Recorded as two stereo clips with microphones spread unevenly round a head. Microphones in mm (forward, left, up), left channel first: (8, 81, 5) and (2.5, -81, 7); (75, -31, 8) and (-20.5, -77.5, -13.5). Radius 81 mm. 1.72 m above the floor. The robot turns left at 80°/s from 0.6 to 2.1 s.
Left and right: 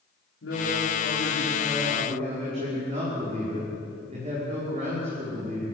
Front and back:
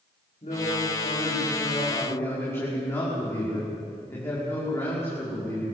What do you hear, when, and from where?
0.4 s a man speaking: 80° left, 5.5 m; by 5.8 s 40° right, 5.5 m